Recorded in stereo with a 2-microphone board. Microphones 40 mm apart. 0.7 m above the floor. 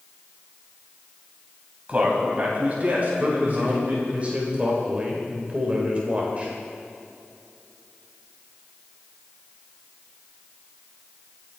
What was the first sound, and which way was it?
A man speaking, 35° right (ahead or behind).